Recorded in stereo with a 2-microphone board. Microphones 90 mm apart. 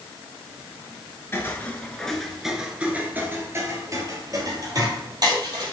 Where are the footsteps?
25° left (ahead or behind), 1.2 m; by 5.7 s 50° right (ahead or behind), 2.5 m.